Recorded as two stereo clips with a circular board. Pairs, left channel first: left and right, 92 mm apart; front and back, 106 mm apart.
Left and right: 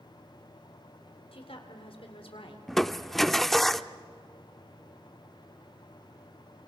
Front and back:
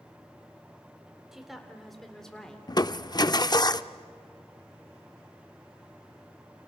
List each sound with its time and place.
1.3 s a woman speaking: 95° left, 3.5 m; by 2.6 s 85° left, 3 m
2.7 s crushing: straight ahead, 0.6 m